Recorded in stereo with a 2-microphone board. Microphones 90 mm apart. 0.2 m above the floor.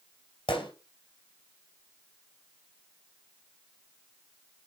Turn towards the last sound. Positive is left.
turn(degrees=75)  # may be behind; listen again after turning